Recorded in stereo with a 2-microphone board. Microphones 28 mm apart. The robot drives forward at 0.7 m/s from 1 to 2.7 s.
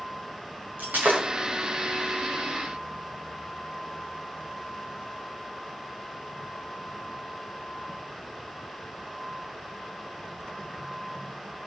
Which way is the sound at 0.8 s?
85° right.